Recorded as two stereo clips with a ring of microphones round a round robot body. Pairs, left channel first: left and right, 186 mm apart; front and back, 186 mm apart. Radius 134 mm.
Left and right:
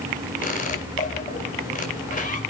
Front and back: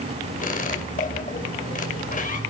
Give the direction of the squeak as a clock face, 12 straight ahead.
11 o'clock.